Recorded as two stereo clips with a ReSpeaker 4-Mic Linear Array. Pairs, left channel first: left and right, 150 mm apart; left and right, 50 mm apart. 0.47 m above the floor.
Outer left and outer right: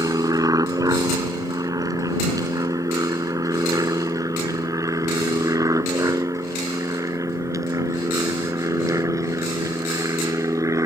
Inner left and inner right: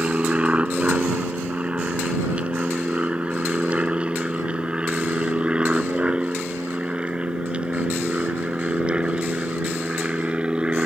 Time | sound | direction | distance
0.0 | an aircraft | 25° right (ahead or behind) | ?